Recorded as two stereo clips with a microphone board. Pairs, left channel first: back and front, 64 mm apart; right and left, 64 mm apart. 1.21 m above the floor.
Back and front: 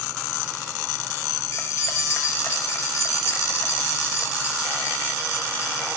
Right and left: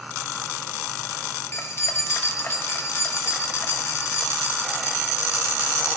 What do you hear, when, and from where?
1.5 s keys jangling: 140° right, 0.7 m